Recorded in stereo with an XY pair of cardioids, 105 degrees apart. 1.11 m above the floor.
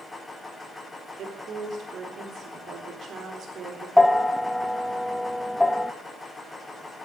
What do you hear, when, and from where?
0.0 s a machine running: 15° left, 4 m
1.2 s a woman speaking: 60° right, 4 m
4.0 s a bell: 10° left, 0.7 m